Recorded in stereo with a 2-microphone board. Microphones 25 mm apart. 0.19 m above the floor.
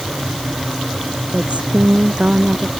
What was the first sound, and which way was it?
A woman speaking, 55° right (ahead or behind).